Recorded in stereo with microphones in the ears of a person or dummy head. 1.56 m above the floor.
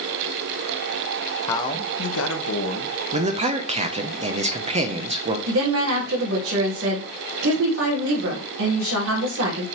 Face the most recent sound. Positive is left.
turn(degrees=-75)  # may be behind; listen again after turning